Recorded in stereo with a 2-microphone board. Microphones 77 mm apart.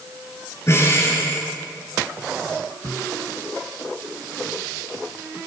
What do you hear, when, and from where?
0.7 s breathing: 40° left (ahead or behind), 6 m